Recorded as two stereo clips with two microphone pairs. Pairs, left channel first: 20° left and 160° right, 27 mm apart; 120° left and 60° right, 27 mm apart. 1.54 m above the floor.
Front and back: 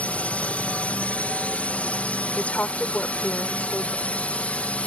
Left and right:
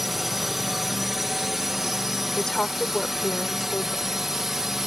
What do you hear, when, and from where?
0.0 s a drone: 20° left; by 4.9 s 15° left
2.4 s a woman speaking: 50° left